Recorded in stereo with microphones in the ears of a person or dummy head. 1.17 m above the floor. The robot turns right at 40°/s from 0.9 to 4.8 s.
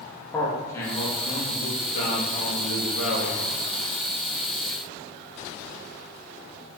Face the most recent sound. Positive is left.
turn(degrees=170)